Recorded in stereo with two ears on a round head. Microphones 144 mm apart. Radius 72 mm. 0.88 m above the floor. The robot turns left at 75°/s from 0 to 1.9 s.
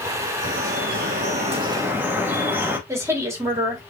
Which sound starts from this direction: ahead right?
Dripping, at 0.4 s.